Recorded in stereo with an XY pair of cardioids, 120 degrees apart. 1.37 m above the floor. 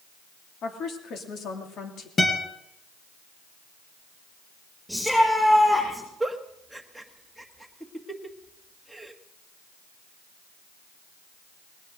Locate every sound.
0.6 s a woman speaking: 55° left, 3 m
2.2 s a guitar: 30° left, 4 m
4.9 s a shout: 5° left, 7 m
6.2 s a giggle: straight ahead, 1.5 m